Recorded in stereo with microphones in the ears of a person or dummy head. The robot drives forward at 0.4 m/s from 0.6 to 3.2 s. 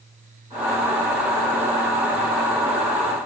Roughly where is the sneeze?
No sneeze in this recording.